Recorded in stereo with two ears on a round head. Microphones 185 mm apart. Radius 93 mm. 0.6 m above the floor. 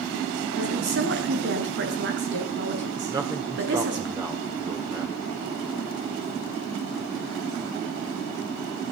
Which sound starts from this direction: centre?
A man speaking, at 3.1 s.